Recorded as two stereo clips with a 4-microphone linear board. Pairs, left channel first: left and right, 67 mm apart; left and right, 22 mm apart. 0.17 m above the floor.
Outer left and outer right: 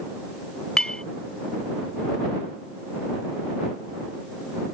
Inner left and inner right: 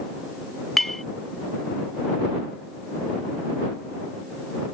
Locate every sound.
0.8 s a clink: 10° left (ahead or behind)